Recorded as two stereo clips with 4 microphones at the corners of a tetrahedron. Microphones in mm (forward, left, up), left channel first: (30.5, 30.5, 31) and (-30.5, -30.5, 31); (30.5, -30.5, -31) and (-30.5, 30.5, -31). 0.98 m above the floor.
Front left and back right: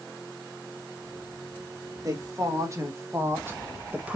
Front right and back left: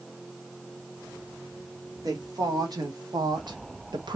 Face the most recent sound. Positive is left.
turn(degrees=150)